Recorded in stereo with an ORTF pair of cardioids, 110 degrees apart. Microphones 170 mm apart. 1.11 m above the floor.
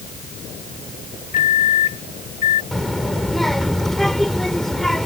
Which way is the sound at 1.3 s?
50° left.